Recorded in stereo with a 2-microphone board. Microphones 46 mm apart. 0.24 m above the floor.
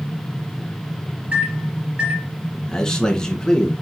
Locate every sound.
1.3 s a microwave: 30° right (ahead or behind), 4 m
2.7 s a man speaking: 15° left (ahead or behind), 2.5 m